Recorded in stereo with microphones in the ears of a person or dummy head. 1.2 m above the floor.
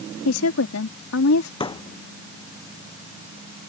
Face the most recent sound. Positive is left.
turn(degrees=30)  # may be behind; listen again after turning